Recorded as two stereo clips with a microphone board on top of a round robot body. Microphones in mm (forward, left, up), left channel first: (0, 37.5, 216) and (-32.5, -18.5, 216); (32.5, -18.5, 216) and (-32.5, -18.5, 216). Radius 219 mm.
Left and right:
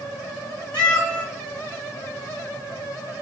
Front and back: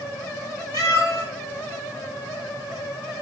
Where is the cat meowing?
10° right, 3.5 m.